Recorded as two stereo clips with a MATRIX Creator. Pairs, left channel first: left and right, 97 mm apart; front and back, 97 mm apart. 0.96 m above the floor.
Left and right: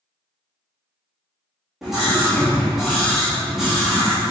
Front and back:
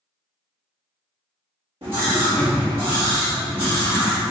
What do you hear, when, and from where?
1.8 s a scream: 175° right, 1.8 m